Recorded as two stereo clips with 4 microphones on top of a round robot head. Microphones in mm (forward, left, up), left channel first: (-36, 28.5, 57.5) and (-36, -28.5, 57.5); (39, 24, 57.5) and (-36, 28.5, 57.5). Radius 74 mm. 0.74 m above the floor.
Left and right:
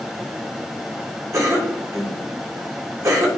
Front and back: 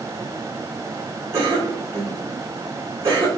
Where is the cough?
130° right, 3.5 m.